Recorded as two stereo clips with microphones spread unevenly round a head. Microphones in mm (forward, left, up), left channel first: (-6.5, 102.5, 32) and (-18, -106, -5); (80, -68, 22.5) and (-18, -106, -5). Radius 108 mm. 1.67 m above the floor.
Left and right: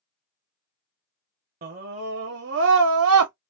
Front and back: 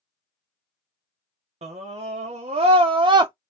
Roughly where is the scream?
Behind right.